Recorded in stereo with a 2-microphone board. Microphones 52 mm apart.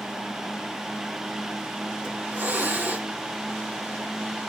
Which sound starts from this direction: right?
A hiss, at 2.0 s.